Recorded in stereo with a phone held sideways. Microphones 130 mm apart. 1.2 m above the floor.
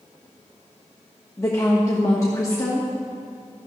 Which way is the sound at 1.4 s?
25° left (ahead or behind).